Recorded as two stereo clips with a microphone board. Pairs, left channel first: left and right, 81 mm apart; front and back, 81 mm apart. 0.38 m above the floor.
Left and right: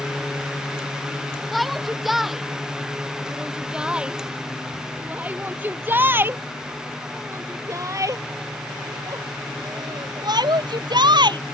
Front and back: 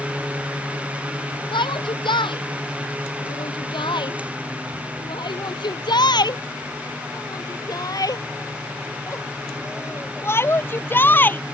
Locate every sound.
1.5 s a shout: straight ahead; by 11.4 s 65° right